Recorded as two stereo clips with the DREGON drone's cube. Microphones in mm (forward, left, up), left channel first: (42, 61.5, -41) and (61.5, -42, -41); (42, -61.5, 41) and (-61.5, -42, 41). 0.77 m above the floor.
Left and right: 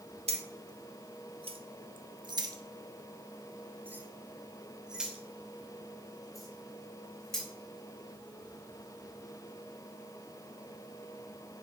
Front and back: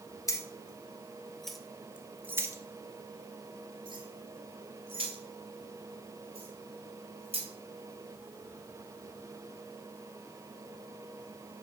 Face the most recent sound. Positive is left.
turn(degrees=-175)